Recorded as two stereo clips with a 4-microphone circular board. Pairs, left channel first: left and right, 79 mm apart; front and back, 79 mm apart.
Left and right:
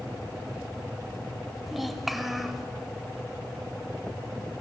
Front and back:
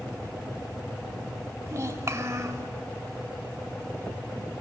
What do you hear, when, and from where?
1.7 s a child speaking: 175° right, 1.1 m